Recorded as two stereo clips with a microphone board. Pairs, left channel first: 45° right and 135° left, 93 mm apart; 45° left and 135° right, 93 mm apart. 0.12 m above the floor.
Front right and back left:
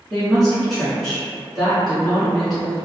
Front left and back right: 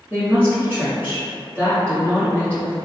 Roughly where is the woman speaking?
Behind right.